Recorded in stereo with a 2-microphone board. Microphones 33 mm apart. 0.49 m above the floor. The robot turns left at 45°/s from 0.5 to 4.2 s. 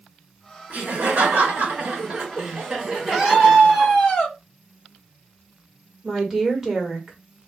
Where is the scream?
160° right, 1.1 m; by 4.4 s 150° left, 1.1 m.